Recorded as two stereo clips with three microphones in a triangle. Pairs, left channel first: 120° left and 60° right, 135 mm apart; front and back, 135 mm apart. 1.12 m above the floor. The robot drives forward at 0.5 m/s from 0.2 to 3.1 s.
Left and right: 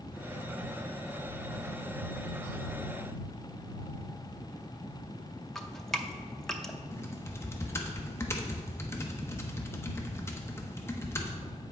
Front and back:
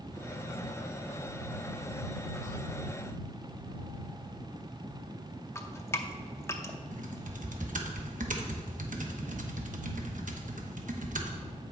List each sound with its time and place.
5.5 s dripping: 40° left, 0.6 m
6.9 s typing on a keyboard: 170° right, 0.9 m